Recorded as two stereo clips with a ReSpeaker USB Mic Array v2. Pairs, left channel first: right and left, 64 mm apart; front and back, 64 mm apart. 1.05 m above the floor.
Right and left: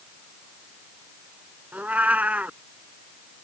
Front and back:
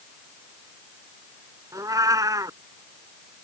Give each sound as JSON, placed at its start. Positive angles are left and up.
{"t": 1.7, "sound": "a cat meowing", "azimuth_deg": 155}